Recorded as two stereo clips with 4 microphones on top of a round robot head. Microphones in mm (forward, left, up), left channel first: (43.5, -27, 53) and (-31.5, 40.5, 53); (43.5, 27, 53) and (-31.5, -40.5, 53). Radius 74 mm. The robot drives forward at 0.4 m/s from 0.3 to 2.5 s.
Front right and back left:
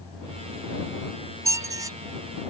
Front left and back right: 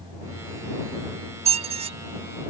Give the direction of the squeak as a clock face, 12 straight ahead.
5 o'clock.